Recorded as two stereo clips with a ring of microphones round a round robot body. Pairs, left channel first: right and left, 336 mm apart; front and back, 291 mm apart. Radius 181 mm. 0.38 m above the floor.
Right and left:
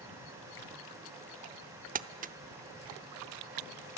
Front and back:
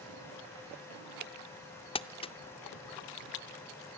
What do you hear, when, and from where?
1.9 s crumpling: 55° left, 0.7 m